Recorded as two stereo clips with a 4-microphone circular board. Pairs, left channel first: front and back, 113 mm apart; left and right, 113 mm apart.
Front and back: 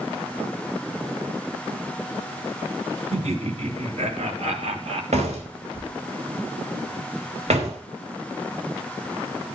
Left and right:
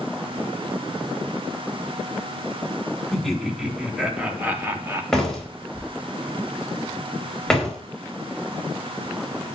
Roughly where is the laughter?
Behind.